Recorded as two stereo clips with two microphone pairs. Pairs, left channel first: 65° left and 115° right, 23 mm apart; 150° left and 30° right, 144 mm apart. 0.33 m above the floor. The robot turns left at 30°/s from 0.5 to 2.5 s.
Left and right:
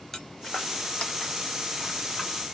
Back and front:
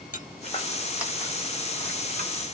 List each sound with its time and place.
0.1 s footsteps: 135° left, 0.8 m; by 2.3 s 20° right, 1.8 m